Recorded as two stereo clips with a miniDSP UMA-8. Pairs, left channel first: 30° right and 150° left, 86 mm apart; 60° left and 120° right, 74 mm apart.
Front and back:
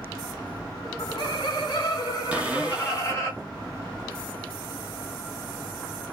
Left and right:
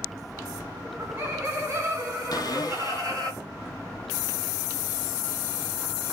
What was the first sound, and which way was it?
Laughter, 60° right.